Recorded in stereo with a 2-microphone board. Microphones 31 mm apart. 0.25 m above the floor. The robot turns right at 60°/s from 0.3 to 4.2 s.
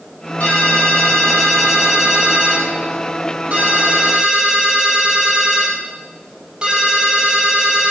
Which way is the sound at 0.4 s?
100° left.